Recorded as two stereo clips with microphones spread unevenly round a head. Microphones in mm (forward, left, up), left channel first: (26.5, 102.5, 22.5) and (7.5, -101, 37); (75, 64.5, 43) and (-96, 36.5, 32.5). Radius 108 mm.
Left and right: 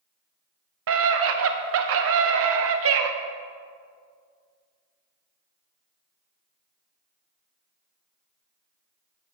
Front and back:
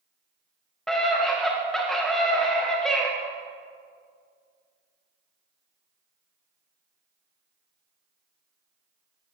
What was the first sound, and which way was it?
A scream, 80° right.